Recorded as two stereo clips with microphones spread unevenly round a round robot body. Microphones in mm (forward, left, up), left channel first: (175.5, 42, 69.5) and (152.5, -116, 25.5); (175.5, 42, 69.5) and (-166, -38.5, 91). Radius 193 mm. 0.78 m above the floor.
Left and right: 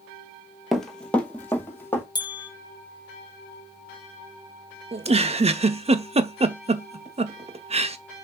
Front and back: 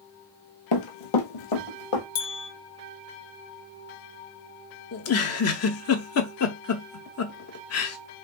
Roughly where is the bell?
Ahead left.